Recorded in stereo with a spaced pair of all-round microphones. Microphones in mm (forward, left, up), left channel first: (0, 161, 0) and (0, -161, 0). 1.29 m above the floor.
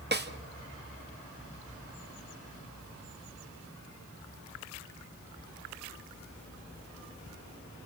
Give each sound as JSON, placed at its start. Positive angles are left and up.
{"t": 0.1, "sound": "a snare drum", "side_deg": -30, "distance_m": 1.3}